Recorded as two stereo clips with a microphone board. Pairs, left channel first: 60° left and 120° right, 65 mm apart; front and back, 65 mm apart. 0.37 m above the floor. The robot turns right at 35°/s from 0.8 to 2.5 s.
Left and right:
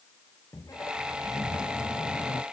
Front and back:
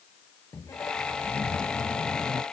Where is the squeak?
30° left; by 2.4 s 90° left.